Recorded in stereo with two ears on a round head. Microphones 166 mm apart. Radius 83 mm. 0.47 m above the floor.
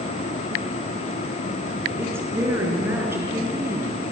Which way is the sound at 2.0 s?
10° right (ahead or behind).